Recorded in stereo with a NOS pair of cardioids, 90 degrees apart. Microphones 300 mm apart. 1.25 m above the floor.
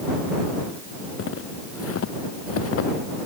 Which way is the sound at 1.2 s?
45° left.